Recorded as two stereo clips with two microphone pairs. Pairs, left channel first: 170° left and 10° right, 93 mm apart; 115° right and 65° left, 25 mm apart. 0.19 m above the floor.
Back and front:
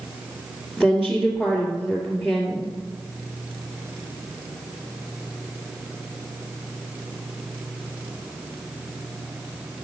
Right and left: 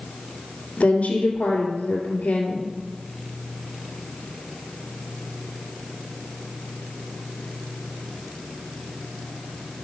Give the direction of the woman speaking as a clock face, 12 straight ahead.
3 o'clock.